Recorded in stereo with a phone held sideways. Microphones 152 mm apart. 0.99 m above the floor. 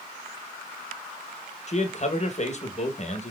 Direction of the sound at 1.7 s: 50° left (ahead or behind).